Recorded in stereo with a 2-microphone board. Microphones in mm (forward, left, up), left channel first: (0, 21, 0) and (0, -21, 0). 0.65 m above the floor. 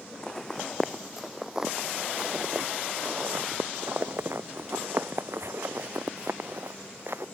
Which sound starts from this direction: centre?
Footsteps, at 0.2 s.